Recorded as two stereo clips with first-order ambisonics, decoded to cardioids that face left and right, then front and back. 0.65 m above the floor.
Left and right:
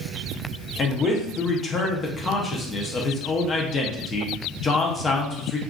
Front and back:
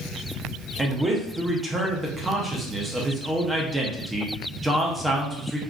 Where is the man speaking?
120° left, 0.5 m.